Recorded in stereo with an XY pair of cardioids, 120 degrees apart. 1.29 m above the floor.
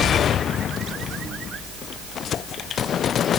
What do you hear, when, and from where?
Only background noise.